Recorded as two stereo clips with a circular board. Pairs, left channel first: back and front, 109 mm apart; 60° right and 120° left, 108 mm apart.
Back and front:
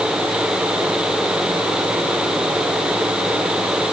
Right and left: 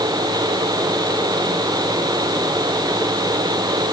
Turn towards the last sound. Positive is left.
No sound to turn to.